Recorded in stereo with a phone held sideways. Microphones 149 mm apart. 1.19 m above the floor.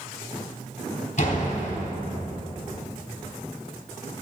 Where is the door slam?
55° left (ahead or behind), 3 m.